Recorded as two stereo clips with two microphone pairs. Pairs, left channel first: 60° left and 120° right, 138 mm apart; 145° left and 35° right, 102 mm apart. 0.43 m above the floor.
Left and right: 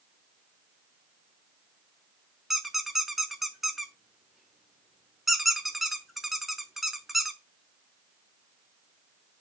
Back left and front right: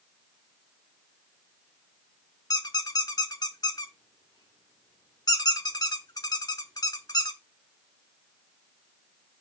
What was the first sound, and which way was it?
A squeak, 150° left.